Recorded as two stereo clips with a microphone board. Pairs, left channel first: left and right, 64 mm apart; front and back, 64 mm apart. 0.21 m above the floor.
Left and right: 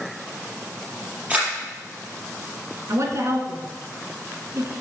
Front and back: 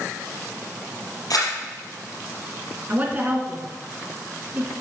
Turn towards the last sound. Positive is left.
turn(degrees=-120)